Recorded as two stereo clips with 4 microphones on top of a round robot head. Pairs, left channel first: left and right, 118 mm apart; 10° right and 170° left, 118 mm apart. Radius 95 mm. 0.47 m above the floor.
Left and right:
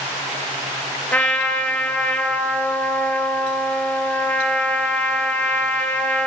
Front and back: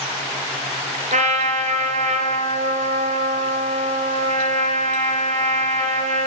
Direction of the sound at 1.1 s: 170° left.